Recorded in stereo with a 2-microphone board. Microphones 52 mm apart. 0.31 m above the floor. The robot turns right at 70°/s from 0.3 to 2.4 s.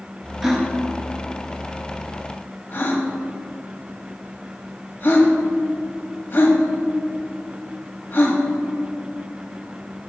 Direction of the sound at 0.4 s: 10° right (ahead or behind).